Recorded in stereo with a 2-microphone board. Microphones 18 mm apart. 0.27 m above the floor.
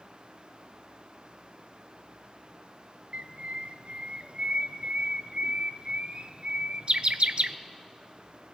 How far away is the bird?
About 0.7 m.